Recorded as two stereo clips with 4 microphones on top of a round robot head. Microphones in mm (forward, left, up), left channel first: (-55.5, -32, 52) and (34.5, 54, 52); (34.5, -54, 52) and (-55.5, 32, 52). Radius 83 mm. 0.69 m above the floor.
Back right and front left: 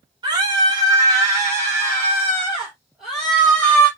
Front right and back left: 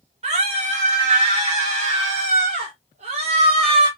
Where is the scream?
100° left, 4.5 m; by 3.9 s 155° left, 2 m.